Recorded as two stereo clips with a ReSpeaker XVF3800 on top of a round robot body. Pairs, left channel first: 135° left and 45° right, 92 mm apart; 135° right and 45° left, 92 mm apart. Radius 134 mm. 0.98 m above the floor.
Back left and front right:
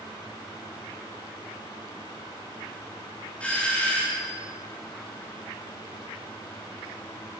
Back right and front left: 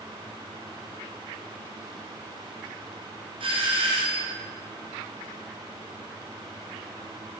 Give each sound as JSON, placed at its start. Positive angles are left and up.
{"t": 3.4, "sound": "a doorbell", "azimuth_deg": 60, "distance_m": 4.0}